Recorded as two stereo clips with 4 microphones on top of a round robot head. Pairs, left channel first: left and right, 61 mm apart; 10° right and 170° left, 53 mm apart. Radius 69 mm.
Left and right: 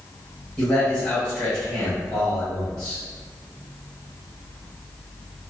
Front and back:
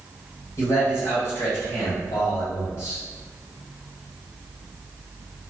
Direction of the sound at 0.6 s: 15° left.